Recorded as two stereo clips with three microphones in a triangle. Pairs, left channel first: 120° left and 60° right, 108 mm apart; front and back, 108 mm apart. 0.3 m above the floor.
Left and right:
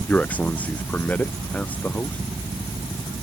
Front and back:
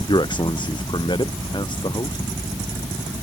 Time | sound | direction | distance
0.1 | a man speaking | 45° left | ?